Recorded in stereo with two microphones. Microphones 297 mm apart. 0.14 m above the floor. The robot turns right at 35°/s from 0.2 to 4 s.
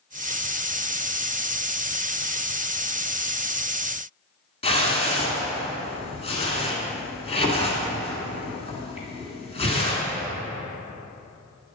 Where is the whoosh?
20° left (ahead or behind), 1.7 m.